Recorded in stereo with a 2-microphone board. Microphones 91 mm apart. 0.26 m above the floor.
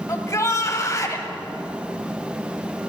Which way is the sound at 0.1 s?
35° left (ahead or behind).